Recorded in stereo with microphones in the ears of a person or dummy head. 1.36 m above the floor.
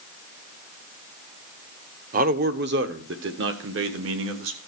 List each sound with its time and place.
2.1 s a man speaking: 45° right (ahead or behind), 0.8 m; by 4.6 s 75° right (ahead or behind), 1.9 m